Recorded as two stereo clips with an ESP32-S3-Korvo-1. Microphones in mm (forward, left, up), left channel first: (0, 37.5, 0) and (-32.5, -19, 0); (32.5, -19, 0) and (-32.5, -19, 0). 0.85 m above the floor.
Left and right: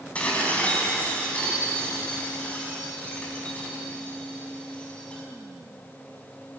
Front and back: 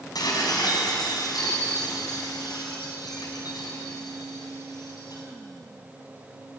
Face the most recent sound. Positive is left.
turn(degrees=-10)